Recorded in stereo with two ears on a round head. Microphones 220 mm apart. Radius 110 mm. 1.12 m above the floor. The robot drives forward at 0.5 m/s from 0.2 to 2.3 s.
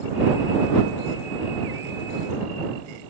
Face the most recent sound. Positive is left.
No sound to turn to.